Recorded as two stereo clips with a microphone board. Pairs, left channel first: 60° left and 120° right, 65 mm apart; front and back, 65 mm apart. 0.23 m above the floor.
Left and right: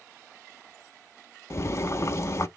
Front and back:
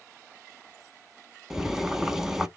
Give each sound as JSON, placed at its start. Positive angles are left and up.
{"t": 1.5, "sound": "boiling", "azimuth_deg": 95, "distance_m": 0.5}